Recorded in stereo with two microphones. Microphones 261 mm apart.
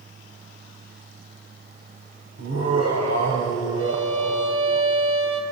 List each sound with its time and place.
2.4 s laughter: 80° right, 3.5 m
3.8 s a violin: 55° right (ahead or behind), 2.5 m